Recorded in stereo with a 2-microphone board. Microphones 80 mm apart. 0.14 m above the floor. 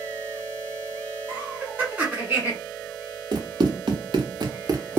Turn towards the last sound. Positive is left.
turn(degrees=-25)  # may be behind; listen again after turning